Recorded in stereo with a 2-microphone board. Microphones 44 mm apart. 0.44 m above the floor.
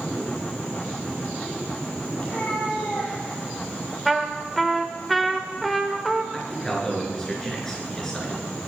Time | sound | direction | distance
2.2 | a cat meowing | 35° left (ahead or behind) | 4.5 m
4.0 | a trumpet | centre (ahead or behind) | 1.3 m
6.3 | a man speaking | 10° left (ahead or behind) | 5 m